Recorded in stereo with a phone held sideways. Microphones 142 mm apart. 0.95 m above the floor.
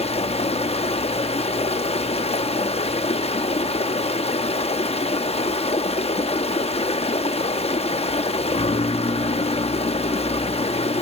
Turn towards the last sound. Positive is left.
turn(degrees=50)  # may be behind; listen again after turning